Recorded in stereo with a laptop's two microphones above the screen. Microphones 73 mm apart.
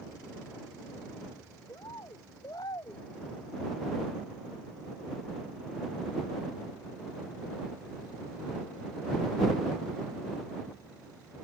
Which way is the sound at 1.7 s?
65° left (ahead or behind).